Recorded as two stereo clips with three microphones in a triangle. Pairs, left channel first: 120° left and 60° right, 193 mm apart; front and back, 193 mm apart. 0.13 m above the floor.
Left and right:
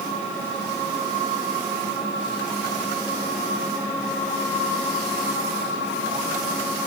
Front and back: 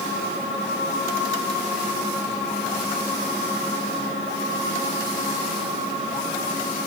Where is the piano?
No piano in this recording.